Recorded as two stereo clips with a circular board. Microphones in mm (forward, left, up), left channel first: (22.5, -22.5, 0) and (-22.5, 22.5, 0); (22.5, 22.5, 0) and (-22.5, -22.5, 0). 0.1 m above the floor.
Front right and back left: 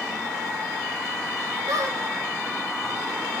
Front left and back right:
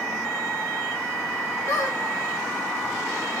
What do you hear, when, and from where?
1.7 s a squeak: 105° left, 0.9 m